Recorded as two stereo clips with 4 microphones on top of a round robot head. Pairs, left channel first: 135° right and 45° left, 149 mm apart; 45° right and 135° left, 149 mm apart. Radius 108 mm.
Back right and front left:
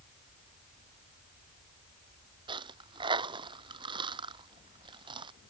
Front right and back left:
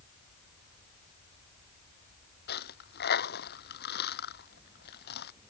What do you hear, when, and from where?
2.5 s a dropped coin: 20° right